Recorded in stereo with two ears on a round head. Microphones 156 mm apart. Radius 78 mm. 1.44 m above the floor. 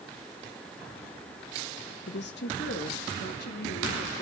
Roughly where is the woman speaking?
Left.